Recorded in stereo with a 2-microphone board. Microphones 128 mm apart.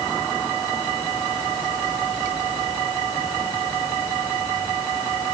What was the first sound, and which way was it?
Only background noise.